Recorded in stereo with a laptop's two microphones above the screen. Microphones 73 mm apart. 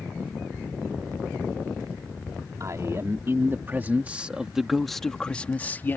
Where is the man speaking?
45° right (ahead or behind); by 6.0 s 30° left (ahead or behind).